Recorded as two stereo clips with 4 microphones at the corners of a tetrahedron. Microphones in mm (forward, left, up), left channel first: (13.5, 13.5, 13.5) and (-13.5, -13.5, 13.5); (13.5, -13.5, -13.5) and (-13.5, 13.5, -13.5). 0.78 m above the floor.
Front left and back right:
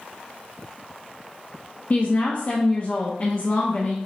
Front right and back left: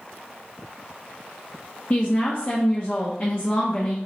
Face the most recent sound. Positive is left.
turn(degrees=-5)